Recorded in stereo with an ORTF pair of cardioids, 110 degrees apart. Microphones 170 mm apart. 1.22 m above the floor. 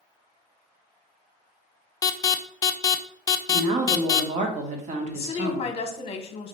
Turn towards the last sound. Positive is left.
turn(degrees=35)